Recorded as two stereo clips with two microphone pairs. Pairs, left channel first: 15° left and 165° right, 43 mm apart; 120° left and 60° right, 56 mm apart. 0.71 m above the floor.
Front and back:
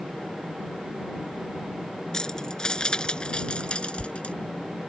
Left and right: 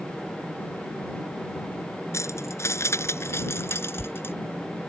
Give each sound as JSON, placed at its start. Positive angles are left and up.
{"t": 2.1, "sound": "keys jangling", "azimuth_deg": 90}